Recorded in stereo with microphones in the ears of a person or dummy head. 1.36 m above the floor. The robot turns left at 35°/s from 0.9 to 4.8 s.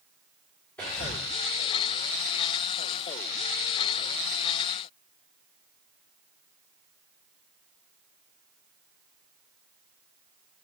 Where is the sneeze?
No sneeze in this recording.